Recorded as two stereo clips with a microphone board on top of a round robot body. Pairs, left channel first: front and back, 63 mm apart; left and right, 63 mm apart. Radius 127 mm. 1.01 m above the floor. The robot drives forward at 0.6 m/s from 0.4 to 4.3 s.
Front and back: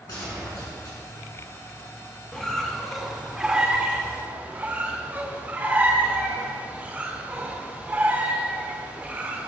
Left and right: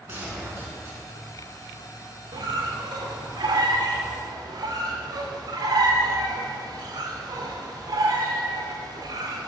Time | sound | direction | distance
0.1 | a gunshot | 35° right | 6.5 m
2.3 | a squeak | 80° right | 2 m